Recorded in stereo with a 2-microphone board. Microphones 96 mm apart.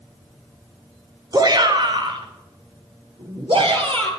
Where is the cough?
I don't hear a cough.